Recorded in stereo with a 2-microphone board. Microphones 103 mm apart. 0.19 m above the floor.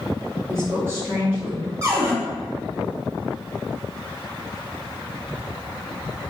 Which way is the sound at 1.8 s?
30° right (ahead or behind).